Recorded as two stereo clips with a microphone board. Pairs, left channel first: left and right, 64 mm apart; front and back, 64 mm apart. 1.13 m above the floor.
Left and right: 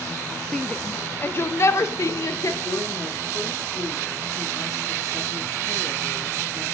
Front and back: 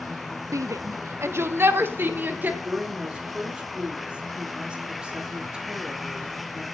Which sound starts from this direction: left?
A woman speaking, at 2.6 s.